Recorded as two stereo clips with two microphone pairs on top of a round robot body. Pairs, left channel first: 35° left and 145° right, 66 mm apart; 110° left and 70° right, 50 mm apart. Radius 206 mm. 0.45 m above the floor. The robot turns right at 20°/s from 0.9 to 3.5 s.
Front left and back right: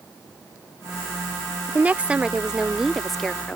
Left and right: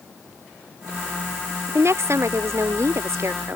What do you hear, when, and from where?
1.7 s a woman speaking: 85° right; by 3.6 s 50° right